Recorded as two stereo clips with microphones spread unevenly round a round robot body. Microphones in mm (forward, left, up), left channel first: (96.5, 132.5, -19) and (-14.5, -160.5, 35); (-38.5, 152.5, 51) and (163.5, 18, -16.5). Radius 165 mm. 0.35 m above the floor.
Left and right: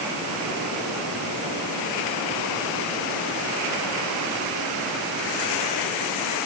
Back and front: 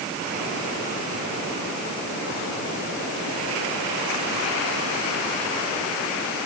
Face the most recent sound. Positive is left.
No sound to turn to.